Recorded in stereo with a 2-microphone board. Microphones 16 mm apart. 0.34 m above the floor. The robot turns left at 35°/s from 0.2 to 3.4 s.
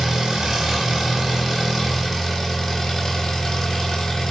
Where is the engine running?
125° right, 1.0 m; by 4.3 s 125° left, 1.0 m.